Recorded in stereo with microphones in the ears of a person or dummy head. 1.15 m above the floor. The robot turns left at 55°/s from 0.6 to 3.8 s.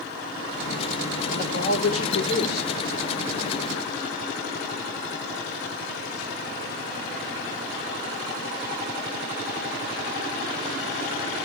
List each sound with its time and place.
1.3 s a man speaking: 125° left, 3 m; by 2.7 s 50° left, 3 m